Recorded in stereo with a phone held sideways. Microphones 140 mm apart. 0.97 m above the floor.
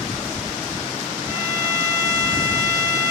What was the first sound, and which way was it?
A violin, 10° left (ahead or behind).